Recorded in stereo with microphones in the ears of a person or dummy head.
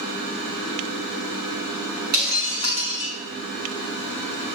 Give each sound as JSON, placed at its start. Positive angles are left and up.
{"t": 2.1, "sound": "breaking glass", "side_deg": -55, "distance_m": 5.0}